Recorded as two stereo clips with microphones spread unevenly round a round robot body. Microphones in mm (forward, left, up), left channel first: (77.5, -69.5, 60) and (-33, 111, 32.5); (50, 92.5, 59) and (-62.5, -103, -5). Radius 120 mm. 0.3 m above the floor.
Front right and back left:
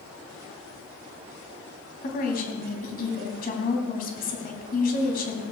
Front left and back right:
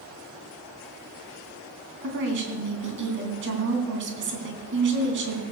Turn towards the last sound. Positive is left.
turn(degrees=-110)